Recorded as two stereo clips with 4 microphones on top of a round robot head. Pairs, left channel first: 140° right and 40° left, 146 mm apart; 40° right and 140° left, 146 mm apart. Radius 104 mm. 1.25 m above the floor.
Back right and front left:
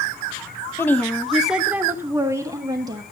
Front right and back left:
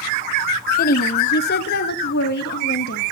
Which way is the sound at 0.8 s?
65° right.